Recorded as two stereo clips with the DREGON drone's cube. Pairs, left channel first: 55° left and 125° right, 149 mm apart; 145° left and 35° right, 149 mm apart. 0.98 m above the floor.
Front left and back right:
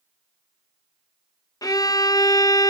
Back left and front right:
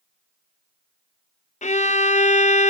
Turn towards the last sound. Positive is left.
turn(degrees=120)